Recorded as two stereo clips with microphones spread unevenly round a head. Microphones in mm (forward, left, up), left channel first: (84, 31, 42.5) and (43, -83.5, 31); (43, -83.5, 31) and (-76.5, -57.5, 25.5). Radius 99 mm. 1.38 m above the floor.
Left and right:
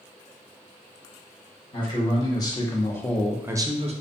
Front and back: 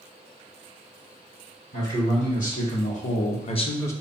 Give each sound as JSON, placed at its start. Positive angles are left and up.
{"t": 1.7, "sound": "a man speaking", "azimuth_deg": 20, "distance_m": 1.7}